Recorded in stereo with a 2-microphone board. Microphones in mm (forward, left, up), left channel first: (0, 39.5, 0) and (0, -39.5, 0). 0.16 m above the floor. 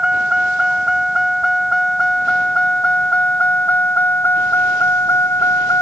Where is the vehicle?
10° right (ahead or behind); by 5.8 s 35° left (ahead or behind).